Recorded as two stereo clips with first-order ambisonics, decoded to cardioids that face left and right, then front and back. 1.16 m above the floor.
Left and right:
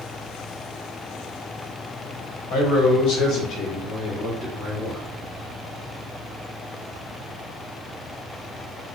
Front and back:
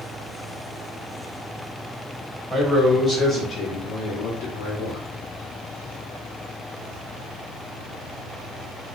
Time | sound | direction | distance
2.5 | a man speaking | 80° left | 1.5 m